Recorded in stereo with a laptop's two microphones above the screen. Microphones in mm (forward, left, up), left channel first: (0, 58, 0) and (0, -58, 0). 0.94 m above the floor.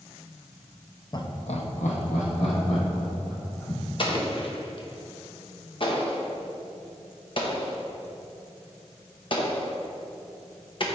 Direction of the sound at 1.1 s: 35° left (ahead or behind).